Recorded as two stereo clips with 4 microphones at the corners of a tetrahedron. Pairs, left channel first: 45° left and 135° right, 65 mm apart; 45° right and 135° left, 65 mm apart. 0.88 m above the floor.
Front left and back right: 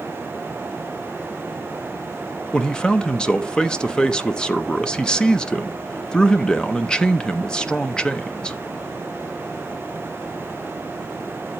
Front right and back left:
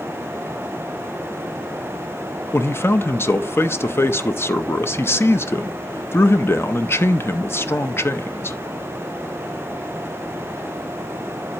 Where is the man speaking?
25° right, 0.5 m.